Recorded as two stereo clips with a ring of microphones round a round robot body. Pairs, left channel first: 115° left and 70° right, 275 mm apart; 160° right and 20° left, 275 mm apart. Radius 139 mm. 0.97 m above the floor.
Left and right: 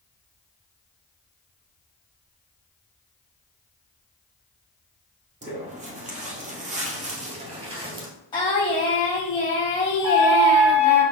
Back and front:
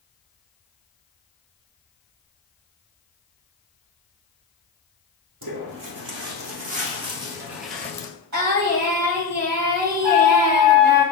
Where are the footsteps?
5° right, 1.6 m; by 8.1 s 105° right, 0.9 m.